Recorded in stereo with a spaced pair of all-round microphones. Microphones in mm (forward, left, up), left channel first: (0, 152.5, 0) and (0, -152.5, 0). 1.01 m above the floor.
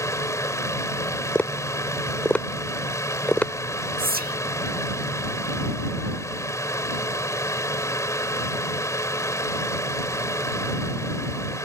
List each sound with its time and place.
0.0 s a fan: 10° left (ahead or behind)
1.4 s tapping: 5° left (ahead or behind)
4.0 s whispering: 30° right (ahead or behind)